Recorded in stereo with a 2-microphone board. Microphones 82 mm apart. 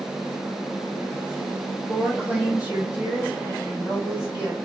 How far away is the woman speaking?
About 1.4 m.